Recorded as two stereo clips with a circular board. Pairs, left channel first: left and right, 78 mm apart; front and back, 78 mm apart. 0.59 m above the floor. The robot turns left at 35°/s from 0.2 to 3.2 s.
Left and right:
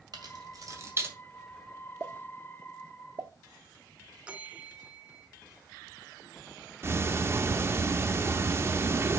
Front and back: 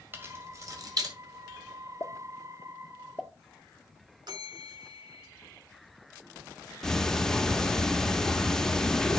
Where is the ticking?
75° right, 0.6 m.